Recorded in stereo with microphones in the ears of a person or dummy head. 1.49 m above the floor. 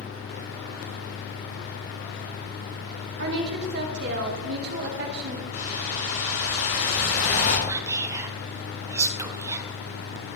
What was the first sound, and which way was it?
A woman speaking, 55° right (ahead or behind).